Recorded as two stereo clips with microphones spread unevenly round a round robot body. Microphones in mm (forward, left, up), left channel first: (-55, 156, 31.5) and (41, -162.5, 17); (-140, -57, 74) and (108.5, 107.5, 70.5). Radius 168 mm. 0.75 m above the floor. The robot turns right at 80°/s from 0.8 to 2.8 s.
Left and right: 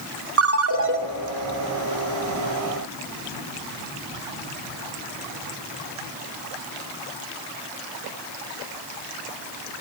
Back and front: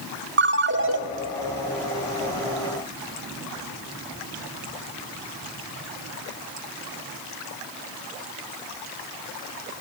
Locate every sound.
0.4 s a ringtone: 20° right, 1.0 m; by 1.0 s 5° right, 1.0 m